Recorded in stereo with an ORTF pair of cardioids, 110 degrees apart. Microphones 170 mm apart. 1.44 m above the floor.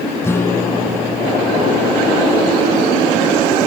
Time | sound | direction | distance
0.2 | a guitar | 15° left | ?